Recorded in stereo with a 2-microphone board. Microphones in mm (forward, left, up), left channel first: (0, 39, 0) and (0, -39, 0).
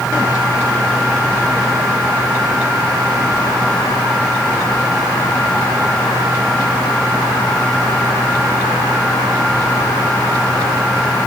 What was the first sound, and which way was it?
Only background noise.